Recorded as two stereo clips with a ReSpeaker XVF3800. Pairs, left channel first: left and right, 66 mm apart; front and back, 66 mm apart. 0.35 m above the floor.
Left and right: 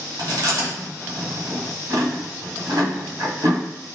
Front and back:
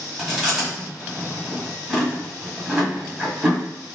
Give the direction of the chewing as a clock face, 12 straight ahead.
3 o'clock.